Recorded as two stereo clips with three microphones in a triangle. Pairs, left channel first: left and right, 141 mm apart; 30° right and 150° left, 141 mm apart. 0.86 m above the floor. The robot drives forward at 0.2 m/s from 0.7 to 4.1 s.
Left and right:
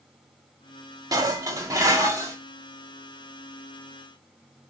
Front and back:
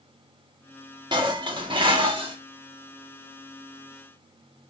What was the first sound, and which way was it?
Dishes clattering, 155° right.